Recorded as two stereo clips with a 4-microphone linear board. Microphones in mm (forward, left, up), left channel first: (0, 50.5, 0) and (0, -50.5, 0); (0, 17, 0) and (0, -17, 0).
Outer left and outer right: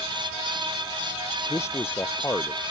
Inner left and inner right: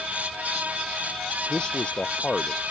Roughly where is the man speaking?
Left.